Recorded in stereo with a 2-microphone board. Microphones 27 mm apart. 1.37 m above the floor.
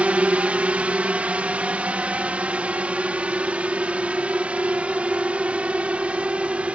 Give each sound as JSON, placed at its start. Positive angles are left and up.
{"t": 0.0, "sound": "a drone", "side_deg": -55}